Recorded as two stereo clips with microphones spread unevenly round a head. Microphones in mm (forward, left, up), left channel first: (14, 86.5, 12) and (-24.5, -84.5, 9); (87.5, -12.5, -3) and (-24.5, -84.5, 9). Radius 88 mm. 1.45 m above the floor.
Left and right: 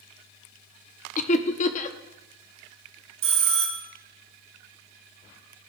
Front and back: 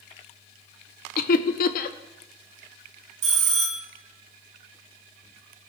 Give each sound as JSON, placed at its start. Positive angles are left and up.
{"t": 1.2, "sound": "laughter", "azimuth_deg": 30, "distance_m": 0.6}
{"t": 3.2, "sound": "a bell", "azimuth_deg": -155, "distance_m": 1.2}